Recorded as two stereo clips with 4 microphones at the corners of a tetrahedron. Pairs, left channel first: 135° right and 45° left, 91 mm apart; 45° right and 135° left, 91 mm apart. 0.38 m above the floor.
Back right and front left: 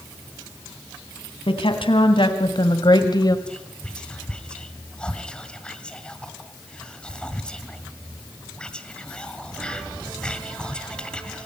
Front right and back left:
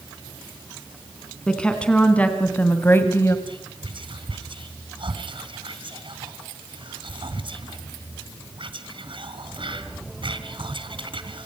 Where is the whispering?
145° left, 3 m.